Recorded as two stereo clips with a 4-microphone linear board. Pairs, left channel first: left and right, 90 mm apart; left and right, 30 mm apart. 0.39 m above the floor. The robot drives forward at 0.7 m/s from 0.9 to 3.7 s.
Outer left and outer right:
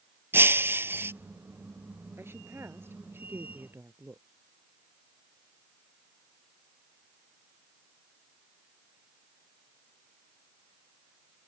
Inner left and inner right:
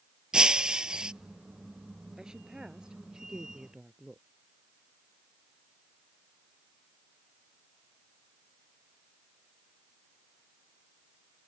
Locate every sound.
0.3 s breaking glass: 25° right (ahead or behind)
2.2 s a woman speaking: 25° right (ahead or behind)